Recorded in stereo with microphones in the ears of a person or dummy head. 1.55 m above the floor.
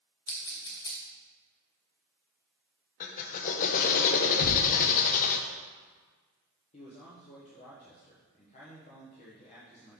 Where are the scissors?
15° left (ahead or behind), 0.8 m.